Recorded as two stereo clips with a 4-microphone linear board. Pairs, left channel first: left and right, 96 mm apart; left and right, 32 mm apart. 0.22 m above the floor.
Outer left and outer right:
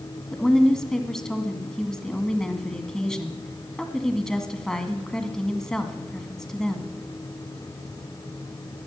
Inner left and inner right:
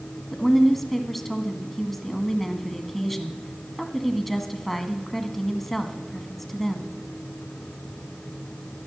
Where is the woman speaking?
5° left (ahead or behind), 1.8 m.